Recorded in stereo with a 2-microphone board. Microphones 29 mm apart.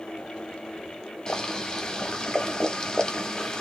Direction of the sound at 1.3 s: 25° left (ahead or behind).